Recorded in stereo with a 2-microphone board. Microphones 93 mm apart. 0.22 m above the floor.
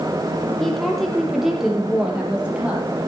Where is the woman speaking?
5° left (ahead or behind), 6 m; by 2.9 s 15° right (ahead or behind), 6 m.